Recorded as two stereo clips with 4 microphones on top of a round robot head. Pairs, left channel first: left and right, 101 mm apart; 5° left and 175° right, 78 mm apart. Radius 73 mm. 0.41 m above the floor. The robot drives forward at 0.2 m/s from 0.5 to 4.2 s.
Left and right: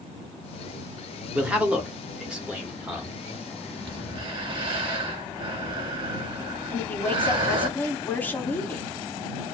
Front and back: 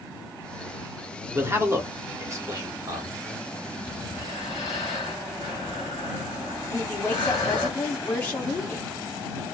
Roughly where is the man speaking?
Behind.